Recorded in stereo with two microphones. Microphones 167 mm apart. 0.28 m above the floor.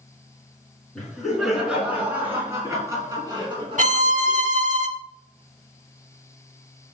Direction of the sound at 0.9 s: 5° left (ahead or behind).